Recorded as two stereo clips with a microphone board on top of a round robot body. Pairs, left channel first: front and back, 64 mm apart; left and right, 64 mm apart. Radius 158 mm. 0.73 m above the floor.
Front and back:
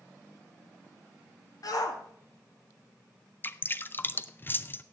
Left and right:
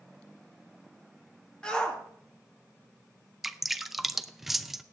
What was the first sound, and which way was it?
A shout, 10° left.